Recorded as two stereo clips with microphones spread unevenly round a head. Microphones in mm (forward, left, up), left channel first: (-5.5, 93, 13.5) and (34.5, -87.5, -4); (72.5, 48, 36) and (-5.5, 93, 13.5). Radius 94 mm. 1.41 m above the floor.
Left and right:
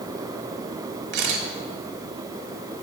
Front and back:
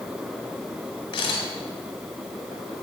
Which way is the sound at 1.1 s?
55° right.